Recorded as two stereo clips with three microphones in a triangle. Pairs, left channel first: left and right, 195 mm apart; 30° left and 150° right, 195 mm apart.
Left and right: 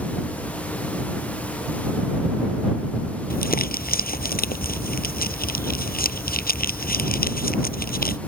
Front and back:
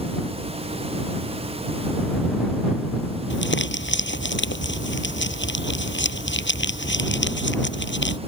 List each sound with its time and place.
3.3 s crumpling: 50° left